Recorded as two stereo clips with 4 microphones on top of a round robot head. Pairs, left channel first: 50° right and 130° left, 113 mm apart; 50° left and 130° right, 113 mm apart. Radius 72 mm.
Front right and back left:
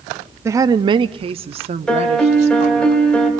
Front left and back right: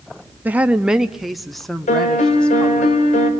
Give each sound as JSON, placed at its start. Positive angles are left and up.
{"t": 0.5, "sound": "a woman speaking", "azimuth_deg": 170, "distance_m": 0.7}
{"t": 1.9, "sound": "a piano", "azimuth_deg": 35, "distance_m": 2.5}